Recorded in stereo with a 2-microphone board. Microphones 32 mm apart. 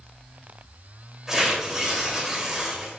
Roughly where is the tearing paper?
Centre.